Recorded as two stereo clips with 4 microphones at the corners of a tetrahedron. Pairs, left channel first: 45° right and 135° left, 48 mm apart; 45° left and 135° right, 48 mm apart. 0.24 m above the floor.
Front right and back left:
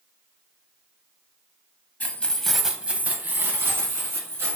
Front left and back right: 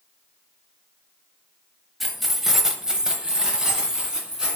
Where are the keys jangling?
45° right, 0.8 m; by 4.6 s 150° left, 1.8 m.